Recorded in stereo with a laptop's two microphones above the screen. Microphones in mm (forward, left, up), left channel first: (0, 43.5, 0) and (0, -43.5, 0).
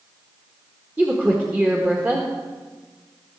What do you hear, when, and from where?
1.0 s a woman speaking: 20° right (ahead or behind), 1.4 m